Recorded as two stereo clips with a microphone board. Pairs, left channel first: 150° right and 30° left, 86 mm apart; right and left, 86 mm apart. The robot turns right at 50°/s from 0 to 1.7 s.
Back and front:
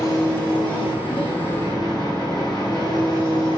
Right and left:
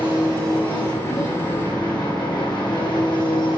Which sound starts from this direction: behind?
An engine running, at 0.0 s.